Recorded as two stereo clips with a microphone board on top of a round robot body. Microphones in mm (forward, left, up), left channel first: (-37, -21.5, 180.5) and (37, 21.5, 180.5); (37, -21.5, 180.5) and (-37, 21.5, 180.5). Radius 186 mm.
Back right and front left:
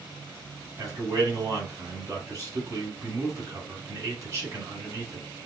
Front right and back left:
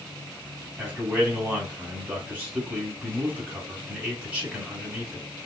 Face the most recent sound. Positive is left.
turn(degrees=80)